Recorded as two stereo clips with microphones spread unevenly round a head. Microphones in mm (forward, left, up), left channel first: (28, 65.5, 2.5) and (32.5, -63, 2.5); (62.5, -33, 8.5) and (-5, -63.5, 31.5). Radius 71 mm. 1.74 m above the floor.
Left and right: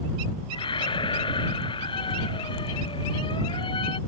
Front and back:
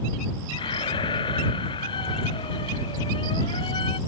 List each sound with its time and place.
0.5 s a squeak: 40° left